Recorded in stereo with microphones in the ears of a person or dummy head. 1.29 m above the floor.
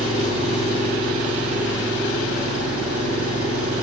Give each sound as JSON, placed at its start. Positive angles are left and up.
{"t": 0.0, "sound": "an engine running", "side_deg": -75, "distance_m": 7.0}